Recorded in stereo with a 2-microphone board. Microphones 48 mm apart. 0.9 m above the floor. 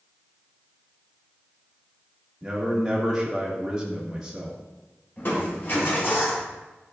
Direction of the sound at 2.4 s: 15° right (ahead or behind).